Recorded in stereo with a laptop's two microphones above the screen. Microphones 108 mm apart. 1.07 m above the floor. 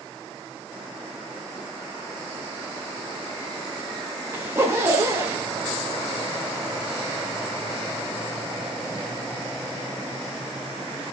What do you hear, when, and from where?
4.3 s a zipper: 20° right (ahead or behind), 2 m